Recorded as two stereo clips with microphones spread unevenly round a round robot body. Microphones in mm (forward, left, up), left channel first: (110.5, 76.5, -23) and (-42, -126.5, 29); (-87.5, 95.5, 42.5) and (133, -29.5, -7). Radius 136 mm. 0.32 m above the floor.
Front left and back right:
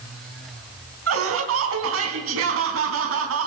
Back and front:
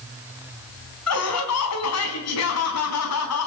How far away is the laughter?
About 4 m.